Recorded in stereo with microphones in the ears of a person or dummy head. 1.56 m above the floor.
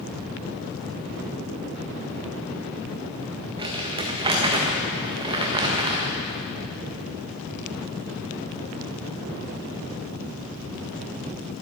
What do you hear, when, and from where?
3.6 s crumpling: 25° right (ahead or behind), 1.6 m